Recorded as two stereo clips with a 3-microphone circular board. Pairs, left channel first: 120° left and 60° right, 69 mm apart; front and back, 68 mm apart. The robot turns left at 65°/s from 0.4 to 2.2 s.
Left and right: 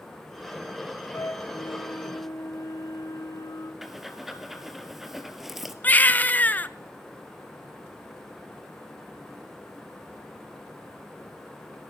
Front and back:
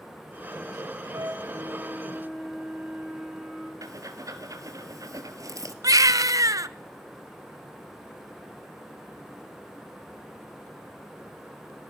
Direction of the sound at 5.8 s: Straight behind.